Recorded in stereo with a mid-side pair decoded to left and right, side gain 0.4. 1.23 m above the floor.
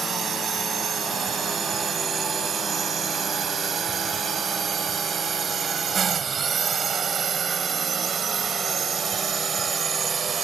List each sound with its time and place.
0.0 s a drone: 60° right; by 10.4 s 50° right